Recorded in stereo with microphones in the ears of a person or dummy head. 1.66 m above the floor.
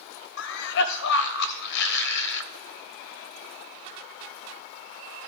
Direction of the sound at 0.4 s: 65° left (ahead or behind).